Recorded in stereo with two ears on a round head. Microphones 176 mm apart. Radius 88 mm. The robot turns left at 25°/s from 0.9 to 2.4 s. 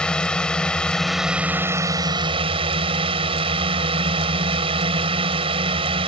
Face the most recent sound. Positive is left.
turn(degrees=-30)